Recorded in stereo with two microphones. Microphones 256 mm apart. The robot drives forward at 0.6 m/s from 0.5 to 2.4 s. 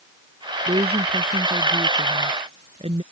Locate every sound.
0.7 s a woman speaking: 20° right (ahead or behind); by 3.0 s 25° right (ahead or behind)